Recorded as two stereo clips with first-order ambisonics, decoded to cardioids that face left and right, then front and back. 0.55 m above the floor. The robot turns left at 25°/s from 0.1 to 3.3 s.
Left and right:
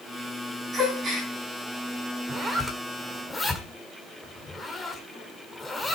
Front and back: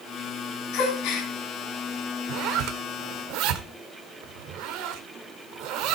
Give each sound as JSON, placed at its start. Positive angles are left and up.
{"t": 0.7, "sound": "a gasp", "azimuth_deg": -15, "distance_m": 5.0}
{"t": 2.3, "sound": "a zipper", "azimuth_deg": -160, "distance_m": 1.9}